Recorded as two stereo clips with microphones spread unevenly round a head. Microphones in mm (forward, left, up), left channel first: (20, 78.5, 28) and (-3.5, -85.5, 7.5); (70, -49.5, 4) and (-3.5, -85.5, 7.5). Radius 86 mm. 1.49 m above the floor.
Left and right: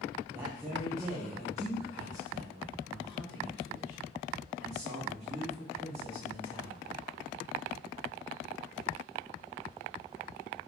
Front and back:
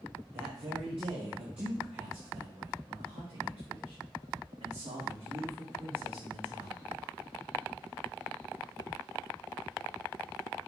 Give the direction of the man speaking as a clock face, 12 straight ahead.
6 o'clock.